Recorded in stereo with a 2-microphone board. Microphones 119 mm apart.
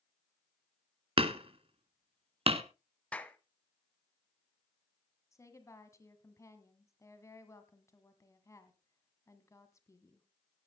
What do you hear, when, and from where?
1.2 s hammering: 50° right (ahead or behind), 0.9 m
3.1 s a clap: 10° left (ahead or behind), 0.9 m
5.3 s a woman speaking: 25° left (ahead or behind), 1.7 m